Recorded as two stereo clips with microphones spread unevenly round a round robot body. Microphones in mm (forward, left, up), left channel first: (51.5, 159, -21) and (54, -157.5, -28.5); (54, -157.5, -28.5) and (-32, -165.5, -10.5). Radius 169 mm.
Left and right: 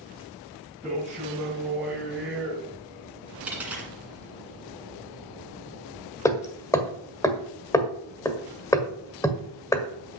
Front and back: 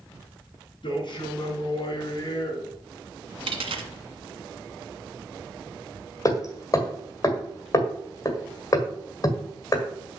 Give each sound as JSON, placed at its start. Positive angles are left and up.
{"t": 0.8, "sound": "a man speaking", "azimuth_deg": -5, "distance_m": 4.5}
{"t": 3.5, "sound": "a dropped coin", "azimuth_deg": -175, "distance_m": 1.7}
{"t": 6.2, "sound": "hammering", "azimuth_deg": 10, "distance_m": 1.5}